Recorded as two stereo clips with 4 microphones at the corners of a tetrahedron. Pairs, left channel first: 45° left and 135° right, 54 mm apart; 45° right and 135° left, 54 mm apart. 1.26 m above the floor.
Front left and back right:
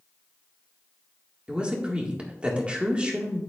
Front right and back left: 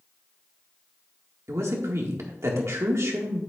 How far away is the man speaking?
About 1.9 m.